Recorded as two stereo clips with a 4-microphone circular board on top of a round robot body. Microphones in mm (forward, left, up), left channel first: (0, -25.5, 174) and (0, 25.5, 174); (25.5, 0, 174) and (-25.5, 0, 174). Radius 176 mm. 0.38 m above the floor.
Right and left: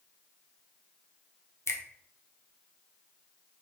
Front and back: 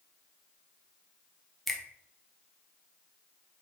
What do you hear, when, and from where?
1.7 s a finger snap: 85° right, 0.9 m